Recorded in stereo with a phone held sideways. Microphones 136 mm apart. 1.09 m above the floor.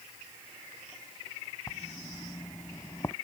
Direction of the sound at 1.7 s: 25° left (ahead or behind).